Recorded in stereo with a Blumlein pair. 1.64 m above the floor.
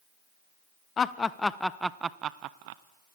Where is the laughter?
20° left, 1.0 m; by 2.8 s 50° right, 0.8 m.